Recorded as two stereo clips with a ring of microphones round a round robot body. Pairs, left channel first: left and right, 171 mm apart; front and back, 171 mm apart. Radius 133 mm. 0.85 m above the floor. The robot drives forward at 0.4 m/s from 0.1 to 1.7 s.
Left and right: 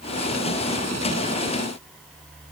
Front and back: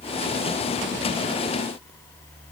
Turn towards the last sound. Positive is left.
No sound to turn to.